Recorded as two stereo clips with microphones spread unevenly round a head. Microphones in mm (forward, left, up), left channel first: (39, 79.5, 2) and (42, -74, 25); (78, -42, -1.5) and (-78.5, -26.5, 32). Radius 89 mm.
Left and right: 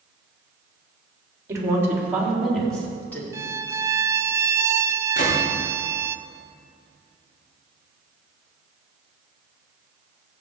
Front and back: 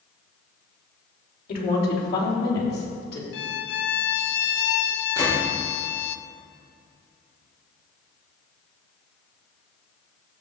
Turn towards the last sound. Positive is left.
turn(degrees=60)